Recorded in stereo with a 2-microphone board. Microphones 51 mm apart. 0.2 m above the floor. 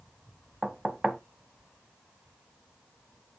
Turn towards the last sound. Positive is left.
turn(degrees=-10)  # may be behind; listen again after turning